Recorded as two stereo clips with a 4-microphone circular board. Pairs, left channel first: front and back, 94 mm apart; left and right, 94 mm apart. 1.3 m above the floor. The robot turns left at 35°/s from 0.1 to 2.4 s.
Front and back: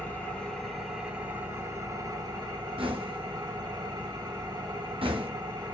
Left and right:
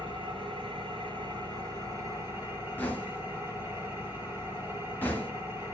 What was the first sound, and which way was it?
An engine running, 75° right.